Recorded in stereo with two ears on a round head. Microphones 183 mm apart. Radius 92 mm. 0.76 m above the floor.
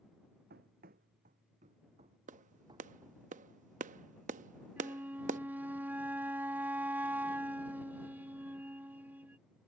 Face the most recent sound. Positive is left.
turn(degrees=-10)  # may be behind; listen again after turning